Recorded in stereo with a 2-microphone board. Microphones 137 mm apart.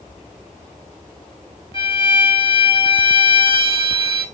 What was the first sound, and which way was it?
A violin, 35° left (ahead or behind).